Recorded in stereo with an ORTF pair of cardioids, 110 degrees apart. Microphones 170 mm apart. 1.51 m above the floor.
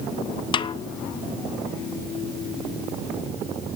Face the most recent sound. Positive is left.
turn(degrees=30)